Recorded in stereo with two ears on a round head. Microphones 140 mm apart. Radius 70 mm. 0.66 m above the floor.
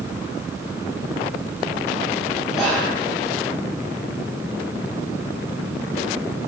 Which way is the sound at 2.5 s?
5° right (ahead or behind).